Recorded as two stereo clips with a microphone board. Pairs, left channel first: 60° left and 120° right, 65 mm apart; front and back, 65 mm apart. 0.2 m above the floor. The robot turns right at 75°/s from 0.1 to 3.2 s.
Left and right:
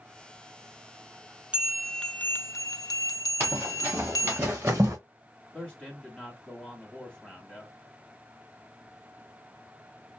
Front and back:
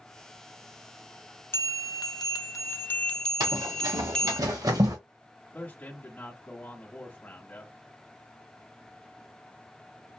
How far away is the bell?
About 0.6 m.